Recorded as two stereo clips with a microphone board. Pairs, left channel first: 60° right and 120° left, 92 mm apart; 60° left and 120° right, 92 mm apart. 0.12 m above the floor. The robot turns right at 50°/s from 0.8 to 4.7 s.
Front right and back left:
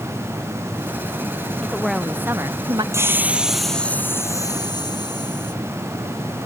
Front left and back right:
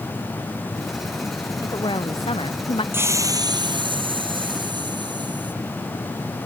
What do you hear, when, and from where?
1.6 s a woman speaking: 20° left; by 2.8 s 80° left
2.9 s a hiss: 175° left; by 5.5 s 95° right